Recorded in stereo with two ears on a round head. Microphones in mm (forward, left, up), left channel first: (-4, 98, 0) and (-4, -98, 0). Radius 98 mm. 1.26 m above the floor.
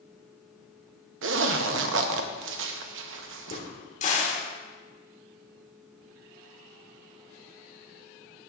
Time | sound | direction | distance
1.2 | a zipper | 60° right (ahead or behind) | 0.8 m
3.5 | a crack | 35° left (ahead or behind) | 1.7 m